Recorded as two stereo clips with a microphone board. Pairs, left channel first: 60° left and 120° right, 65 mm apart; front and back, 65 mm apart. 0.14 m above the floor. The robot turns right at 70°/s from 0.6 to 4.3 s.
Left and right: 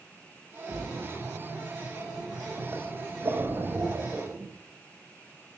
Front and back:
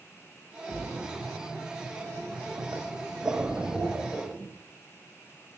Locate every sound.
0.7 s a splash: 55° left, 7.5 m; by 4.5 s 50° right, 7.5 m